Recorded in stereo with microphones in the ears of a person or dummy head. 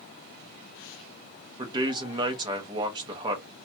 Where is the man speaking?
25° right (ahead or behind), 0.5 m.